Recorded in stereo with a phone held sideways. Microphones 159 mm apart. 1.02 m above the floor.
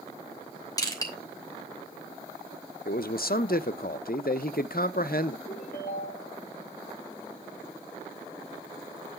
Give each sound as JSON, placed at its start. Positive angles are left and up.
{"t": 0.8, "sound": "crushing", "side_deg": 25, "distance_m": 3.0}
{"t": 2.9, "sound": "a man speaking", "side_deg": 70, "distance_m": 0.6}
{"t": 5.5, "sound": "a ringtone", "side_deg": 75, "distance_m": 4.0}